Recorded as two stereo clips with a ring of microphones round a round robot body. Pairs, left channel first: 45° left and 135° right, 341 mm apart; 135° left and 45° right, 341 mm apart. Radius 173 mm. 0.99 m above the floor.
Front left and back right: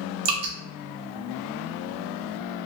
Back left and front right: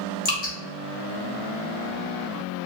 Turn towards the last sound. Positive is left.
turn(degrees=-160)